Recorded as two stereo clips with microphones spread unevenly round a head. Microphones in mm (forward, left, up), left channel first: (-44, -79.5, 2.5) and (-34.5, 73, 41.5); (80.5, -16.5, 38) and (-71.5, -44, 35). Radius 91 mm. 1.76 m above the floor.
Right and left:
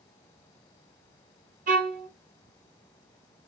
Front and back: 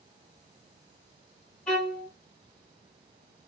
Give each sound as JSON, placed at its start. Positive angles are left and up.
{"t": 1.7, "sound": "a violin", "azimuth_deg": 95, "distance_m": 0.9}